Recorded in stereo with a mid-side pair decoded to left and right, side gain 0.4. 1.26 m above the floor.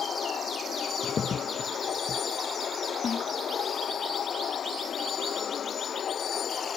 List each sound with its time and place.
0.0 s a vehicle: 55° left
1.0 s a crack: 50° left
3.0 s a snare drum: 45° left